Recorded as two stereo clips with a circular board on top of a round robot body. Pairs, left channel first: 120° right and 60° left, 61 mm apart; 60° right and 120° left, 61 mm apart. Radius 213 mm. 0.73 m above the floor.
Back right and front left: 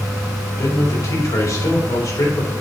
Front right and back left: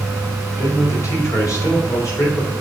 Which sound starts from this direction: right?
A man speaking, at 0.6 s.